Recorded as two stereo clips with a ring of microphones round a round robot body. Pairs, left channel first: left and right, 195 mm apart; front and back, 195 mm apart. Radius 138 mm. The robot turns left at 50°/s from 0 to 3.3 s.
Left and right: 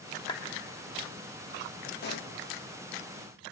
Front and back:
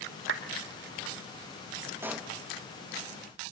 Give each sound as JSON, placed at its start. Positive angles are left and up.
{"t": 0.3, "sound": "a clap", "azimuth_deg": 165, "distance_m": 1.3}
{"t": 2.0, "sound": "a pop", "azimuth_deg": 105, "distance_m": 0.9}